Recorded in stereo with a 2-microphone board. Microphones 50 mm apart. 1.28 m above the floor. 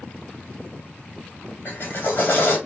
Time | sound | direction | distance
1.6 | a drill | 45° left (ahead or behind) | 2 m